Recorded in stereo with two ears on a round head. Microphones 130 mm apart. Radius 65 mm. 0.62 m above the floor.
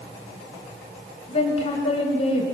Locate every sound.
1.3 s a woman speaking: 45° left (ahead or behind), 3.5 m